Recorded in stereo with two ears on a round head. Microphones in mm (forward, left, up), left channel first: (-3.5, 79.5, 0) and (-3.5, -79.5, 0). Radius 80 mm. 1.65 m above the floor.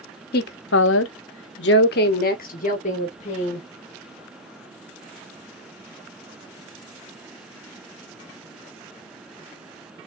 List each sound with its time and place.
0.3 s a woman speaking: 55° left (ahead or behind), 0.8 m; by 3.7 s 35° left (ahead or behind), 1.7 m